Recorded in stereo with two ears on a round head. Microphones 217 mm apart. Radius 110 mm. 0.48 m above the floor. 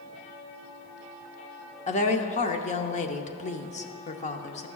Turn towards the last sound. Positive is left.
turn(degrees=30)  # may be behind; listen again after turning